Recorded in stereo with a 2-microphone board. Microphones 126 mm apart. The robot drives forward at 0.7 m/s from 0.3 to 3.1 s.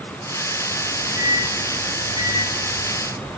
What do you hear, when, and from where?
0.8 s a microwave: 55° right (ahead or behind), 3 m; by 3.3 s 40° right (ahead or behind), 4 m